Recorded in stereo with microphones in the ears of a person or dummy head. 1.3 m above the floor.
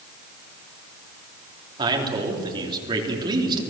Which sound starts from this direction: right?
A man speaking, at 1.8 s.